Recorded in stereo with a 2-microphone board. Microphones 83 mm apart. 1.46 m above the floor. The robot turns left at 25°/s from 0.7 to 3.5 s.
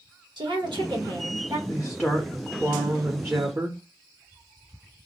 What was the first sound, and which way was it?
A woman speaking, 70° right (ahead or behind).